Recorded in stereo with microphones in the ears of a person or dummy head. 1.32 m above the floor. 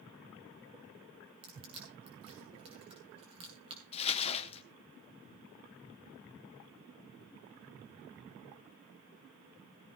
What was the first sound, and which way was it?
Crushing, 35° right (ahead or behind).